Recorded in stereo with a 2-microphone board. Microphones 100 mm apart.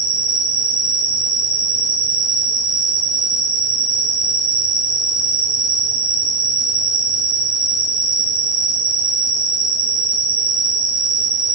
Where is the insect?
10° right (ahead or behind), 1.9 m.